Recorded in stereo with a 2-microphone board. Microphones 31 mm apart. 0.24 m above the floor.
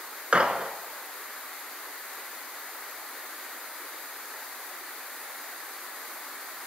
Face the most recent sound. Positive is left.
turn(degrees=-40)  # may be behind; listen again after turning